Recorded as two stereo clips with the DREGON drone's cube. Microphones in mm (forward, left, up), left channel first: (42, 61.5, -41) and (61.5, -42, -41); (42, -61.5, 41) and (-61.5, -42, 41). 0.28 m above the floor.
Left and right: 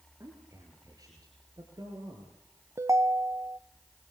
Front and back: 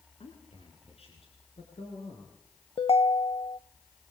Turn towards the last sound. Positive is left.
turn(degrees=-25)